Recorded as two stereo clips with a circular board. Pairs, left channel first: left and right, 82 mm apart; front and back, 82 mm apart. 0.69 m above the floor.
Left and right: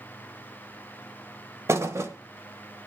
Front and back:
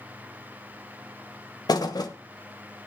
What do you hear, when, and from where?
1.7 s a thud: 35° right, 1.3 m